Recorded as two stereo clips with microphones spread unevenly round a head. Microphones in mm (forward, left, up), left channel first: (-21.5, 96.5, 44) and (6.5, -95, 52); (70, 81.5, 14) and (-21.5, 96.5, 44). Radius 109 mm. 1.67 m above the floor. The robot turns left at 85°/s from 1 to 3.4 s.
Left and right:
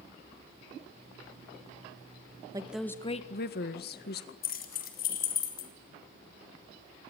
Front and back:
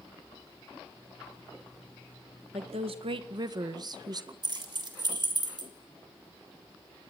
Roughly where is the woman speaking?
Behind right.